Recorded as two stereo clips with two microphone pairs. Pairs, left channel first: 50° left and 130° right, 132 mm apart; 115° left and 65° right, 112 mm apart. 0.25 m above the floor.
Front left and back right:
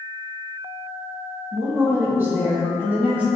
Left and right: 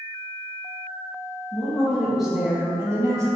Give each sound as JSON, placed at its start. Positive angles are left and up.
{"t": 1.5, "sound": "a woman speaking", "azimuth_deg": -175, "distance_m": 1.2}